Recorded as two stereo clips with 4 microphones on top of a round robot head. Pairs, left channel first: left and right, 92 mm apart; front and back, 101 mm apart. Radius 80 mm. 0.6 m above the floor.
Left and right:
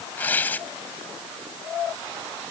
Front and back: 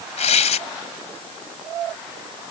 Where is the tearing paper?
10° left.